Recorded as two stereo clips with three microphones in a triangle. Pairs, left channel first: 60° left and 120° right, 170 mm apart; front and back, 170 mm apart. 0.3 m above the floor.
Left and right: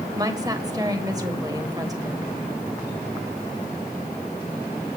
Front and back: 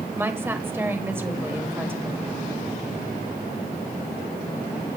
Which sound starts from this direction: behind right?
A woman speaking, at 0.2 s.